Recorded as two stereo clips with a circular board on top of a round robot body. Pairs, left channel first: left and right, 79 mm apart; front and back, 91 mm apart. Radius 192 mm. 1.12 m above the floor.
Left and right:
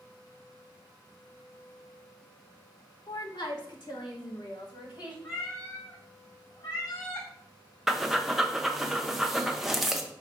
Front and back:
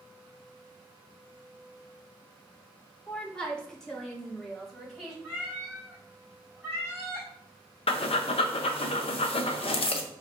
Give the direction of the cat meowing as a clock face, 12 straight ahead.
8 o'clock.